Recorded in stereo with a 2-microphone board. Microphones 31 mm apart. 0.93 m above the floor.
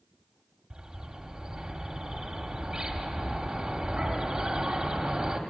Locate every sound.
0.7 s a bird: 35° right (ahead or behind), 1.8 m